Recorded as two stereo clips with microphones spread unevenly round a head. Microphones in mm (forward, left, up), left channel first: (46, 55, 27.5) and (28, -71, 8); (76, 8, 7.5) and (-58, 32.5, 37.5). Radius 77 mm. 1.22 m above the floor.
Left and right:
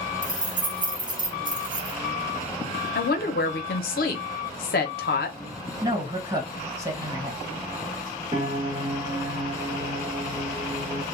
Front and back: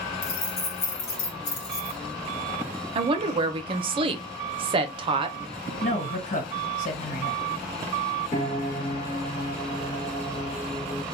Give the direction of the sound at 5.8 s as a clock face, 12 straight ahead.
1 o'clock.